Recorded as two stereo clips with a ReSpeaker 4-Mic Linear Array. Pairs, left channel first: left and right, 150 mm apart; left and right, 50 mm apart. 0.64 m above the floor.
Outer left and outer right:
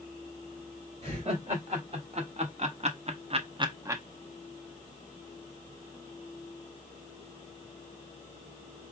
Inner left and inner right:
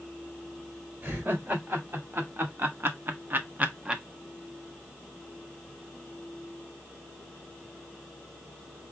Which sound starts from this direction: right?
Laughter, at 1.0 s.